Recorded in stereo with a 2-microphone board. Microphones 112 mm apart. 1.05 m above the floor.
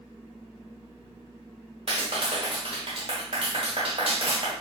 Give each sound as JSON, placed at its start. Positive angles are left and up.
{"t": 1.9, "sound": "a clap", "side_deg": -55, "distance_m": 1.5}